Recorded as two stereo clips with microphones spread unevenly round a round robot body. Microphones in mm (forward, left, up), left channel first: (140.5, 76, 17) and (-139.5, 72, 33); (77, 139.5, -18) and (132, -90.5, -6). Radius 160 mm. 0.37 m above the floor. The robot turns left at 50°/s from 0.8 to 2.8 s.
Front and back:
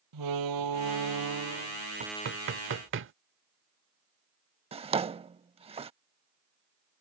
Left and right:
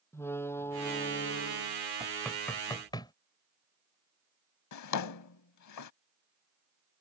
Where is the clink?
I don't hear a clink.